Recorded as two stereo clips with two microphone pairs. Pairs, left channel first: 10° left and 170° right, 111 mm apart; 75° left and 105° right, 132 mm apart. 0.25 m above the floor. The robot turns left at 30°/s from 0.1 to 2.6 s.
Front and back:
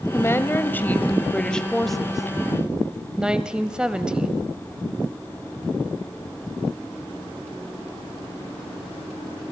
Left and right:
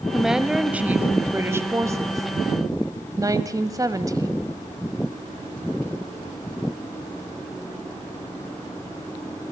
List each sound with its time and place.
0.1 s a woman speaking: 20° right, 1.2 m; by 4.5 s 95° right, 1.2 m